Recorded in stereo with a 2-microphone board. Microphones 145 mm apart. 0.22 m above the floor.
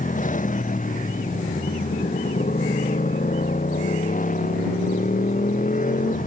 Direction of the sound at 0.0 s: 65° left (ahead or behind).